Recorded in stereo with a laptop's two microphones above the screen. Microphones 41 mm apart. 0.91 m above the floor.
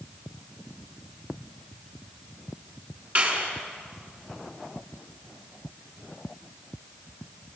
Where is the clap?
45° right (ahead or behind), 6.5 m.